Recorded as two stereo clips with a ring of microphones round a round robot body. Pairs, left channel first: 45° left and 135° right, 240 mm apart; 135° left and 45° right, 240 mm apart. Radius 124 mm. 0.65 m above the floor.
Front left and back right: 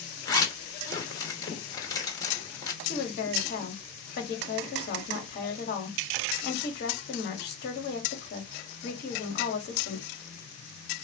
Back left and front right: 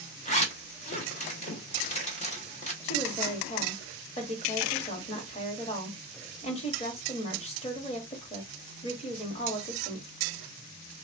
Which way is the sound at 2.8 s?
80° left.